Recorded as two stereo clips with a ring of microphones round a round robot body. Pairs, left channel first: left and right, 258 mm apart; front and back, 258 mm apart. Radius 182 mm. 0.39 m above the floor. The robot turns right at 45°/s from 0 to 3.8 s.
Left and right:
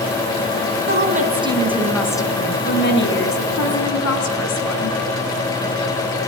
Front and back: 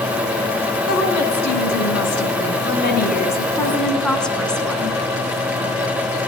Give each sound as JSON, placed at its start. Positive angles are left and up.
{"t": 0.9, "sound": "a woman speaking", "azimuth_deg": -45, "distance_m": 4.5}